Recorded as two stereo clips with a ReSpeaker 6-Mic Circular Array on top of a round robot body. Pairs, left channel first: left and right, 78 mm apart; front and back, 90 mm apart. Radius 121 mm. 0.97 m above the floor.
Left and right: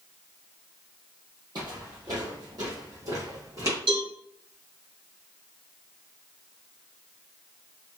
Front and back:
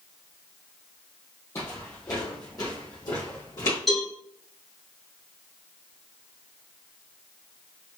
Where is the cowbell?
85° right, 2.5 m.